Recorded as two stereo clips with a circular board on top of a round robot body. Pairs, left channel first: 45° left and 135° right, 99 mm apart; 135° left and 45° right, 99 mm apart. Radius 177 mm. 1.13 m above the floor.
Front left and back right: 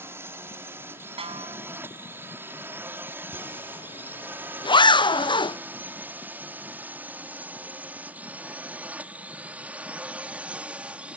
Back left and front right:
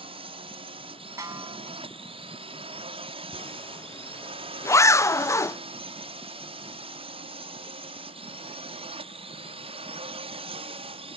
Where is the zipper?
75° left.